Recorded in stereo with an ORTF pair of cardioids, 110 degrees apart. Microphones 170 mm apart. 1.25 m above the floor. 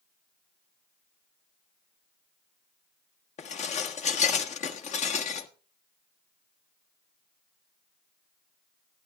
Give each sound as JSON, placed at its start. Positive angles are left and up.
{"t": 3.4, "sound": "dishes clattering", "azimuth_deg": 45, "distance_m": 1.4}